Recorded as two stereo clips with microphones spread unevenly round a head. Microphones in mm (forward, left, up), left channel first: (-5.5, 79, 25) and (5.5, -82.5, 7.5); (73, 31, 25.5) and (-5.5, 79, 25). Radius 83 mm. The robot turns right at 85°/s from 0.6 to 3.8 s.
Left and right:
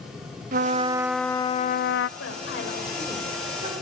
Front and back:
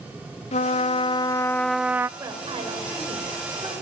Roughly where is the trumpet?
Ahead right.